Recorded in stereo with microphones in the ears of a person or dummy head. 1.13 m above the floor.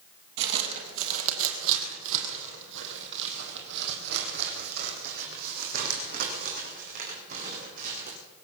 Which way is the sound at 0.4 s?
60° right (ahead or behind).